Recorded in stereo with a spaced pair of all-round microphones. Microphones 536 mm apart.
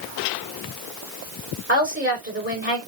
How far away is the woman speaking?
About 7 m.